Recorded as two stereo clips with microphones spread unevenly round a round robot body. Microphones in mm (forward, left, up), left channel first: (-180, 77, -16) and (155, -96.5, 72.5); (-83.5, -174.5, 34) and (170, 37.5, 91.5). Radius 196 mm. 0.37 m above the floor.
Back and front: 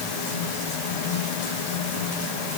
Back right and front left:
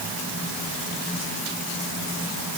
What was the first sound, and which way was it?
Only background noise.